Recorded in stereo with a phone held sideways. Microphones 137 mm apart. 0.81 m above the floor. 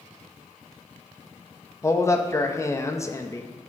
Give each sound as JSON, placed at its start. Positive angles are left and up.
{"t": 1.8, "sound": "a man speaking", "side_deg": 20, "distance_m": 0.5}